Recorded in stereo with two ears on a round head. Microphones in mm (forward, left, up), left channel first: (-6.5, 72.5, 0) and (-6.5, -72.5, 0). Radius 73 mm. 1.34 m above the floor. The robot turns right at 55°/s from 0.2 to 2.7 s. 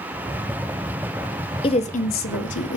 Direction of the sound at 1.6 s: 30° left (ahead or behind).